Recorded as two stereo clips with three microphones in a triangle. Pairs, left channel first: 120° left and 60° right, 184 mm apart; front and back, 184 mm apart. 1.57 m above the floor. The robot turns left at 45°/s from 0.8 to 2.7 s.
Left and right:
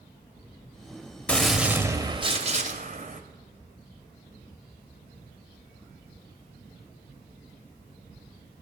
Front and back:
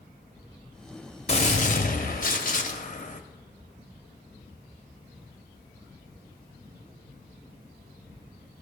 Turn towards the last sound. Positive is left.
turn(degrees=-25)